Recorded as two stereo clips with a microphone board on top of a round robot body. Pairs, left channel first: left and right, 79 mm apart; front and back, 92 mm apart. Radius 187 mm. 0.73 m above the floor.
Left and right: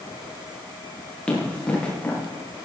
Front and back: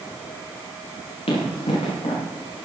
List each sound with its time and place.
1.3 s running footsteps: 10° left, 8.5 m